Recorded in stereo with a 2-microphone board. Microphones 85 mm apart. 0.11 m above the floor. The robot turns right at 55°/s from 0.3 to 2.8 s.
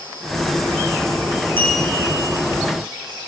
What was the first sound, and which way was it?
A clink, 155° left.